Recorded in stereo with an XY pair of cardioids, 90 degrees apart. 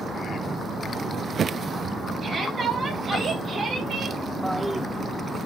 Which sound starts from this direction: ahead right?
A shout, at 2.2 s.